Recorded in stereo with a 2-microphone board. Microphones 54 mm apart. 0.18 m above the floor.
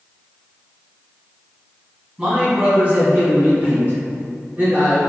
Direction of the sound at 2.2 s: 15° right (ahead or behind).